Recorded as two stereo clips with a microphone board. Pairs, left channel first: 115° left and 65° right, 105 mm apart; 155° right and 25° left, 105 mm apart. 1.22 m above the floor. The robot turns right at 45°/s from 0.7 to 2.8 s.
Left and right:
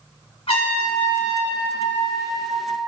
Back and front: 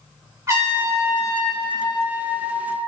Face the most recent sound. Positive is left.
turn(degrees=180)